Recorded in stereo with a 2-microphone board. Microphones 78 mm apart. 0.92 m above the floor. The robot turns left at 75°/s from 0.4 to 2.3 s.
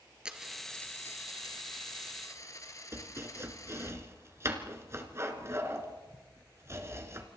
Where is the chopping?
35° right (ahead or behind), 2 m.